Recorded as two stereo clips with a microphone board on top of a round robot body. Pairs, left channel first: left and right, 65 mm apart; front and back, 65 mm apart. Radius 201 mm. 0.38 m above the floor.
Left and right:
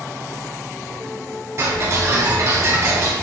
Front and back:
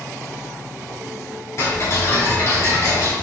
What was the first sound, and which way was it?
Ticking, 45° right.